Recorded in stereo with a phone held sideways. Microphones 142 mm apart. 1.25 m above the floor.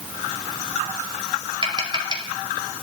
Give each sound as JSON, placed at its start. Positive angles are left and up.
{"t": 1.6, "sound": "tapping", "side_deg": -35, "distance_m": 5.5}